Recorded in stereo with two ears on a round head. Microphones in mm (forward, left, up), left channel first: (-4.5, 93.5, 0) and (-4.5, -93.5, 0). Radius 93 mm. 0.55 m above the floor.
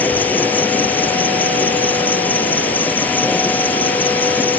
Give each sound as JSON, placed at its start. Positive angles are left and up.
{"t": 0.0, "sound": "an insect", "side_deg": 10}